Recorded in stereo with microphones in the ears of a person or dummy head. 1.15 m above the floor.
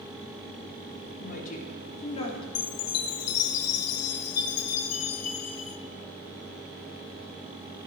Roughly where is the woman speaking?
Left.